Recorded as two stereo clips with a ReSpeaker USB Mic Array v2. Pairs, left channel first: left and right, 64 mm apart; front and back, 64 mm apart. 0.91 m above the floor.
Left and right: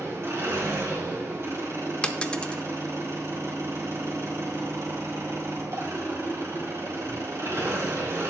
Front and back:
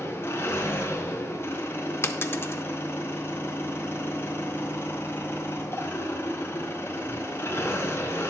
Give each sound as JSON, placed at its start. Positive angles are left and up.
{"t": 0.0, "sound": "an engine running", "azimuth_deg": -45, "distance_m": 3.0}
{"t": 2.0, "sound": "a dropped coin", "azimuth_deg": 25, "distance_m": 0.6}